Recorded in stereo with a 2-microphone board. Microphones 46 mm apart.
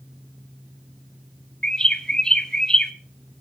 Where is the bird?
15° left (ahead or behind), 0.8 m.